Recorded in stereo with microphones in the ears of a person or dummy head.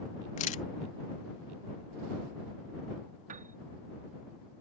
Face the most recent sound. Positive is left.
turn(degrees=-50)  # may be behind; listen again after turning